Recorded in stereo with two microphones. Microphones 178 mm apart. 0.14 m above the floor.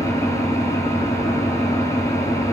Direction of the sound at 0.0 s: 15° left (ahead or behind).